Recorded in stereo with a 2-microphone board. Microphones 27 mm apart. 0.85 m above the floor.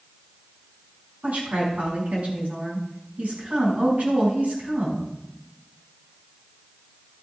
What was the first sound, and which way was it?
A woman speaking, 75° right (ahead or behind).